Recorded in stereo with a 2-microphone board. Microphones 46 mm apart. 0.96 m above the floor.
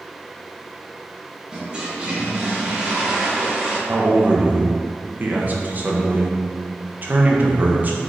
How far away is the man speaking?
About 0.7 m.